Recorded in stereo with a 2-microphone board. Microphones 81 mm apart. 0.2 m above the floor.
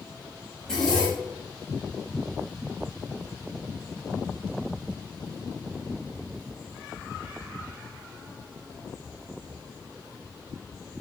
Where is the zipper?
10° left (ahead or behind), 6.5 m.